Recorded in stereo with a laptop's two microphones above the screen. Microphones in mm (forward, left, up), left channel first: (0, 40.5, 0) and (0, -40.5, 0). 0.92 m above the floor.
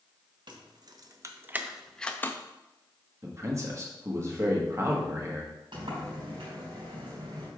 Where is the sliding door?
80° right, 3 m.